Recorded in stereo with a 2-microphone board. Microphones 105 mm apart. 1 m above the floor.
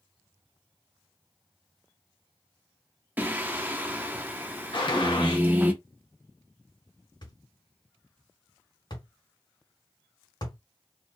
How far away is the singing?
About 0.7 m.